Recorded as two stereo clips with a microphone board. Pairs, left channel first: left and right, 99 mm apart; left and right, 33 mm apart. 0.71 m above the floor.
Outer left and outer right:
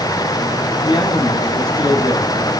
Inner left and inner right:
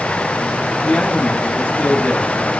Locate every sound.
0.8 s a man speaking: 50° left (ahead or behind), 4 m